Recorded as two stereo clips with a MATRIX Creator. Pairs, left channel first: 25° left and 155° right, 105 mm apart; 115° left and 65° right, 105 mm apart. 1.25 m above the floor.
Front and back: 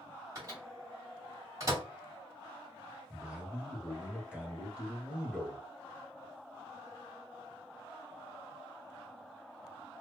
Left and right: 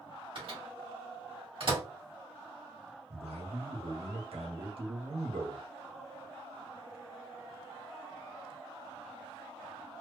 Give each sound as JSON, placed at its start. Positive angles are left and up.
{"t": 0.3, "sound": "a microwave", "azimuth_deg": -100, "distance_m": 2.0}
{"t": 3.1, "sound": "a man speaking", "azimuth_deg": -80, "distance_m": 1.5}